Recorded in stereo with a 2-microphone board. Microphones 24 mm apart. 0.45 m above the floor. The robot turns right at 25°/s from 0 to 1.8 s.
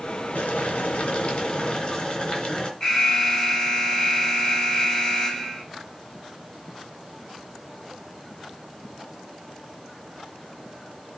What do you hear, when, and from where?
0.3 s boiling: 110° left, 3 m; by 2.7 s 145° left, 3 m
2.8 s an alarm: 20° left (ahead or behind), 4 m